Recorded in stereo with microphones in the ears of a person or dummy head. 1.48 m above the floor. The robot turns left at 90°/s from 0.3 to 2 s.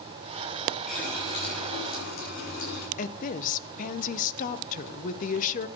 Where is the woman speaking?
45° left (ahead or behind), 0.9 m.